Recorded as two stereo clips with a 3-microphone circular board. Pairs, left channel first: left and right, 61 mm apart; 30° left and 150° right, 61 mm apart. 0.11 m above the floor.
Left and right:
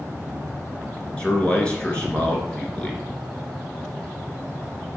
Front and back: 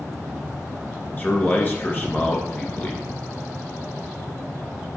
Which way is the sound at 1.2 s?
40° left.